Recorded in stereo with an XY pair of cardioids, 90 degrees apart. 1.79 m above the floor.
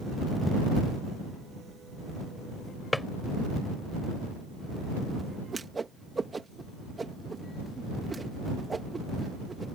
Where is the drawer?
10° left.